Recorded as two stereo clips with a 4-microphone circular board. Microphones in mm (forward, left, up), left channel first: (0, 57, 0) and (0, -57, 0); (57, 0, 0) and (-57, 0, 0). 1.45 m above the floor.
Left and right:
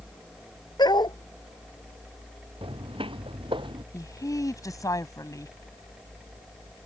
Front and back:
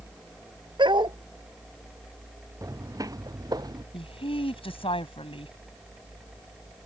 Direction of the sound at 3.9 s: 30° left.